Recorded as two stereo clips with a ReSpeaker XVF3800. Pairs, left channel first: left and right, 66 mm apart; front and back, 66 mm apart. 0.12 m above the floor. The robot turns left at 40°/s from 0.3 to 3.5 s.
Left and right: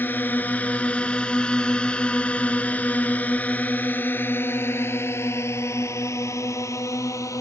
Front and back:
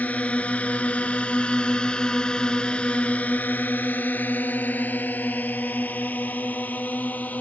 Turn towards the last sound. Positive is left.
turn(degrees=60)